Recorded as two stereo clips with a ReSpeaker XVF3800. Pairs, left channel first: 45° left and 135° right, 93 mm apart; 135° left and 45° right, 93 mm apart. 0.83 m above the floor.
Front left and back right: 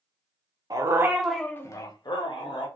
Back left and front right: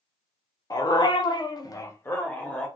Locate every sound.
0.7 s a dog barking: straight behind, 0.7 m; by 2.7 s 60° left, 1.1 m